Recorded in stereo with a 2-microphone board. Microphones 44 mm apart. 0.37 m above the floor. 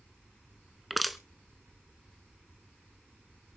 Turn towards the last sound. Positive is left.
turn(degrees=5)  # may be behind; listen again after turning